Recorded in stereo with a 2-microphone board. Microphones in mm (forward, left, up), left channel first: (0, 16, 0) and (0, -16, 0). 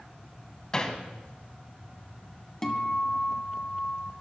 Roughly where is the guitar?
Centre.